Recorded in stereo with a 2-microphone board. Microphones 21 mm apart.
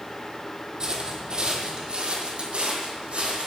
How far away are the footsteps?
About 2.5 m.